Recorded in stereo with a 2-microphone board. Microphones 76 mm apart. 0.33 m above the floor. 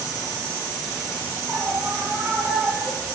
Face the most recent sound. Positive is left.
turn(degrees=-25)  # may be behind; listen again after turning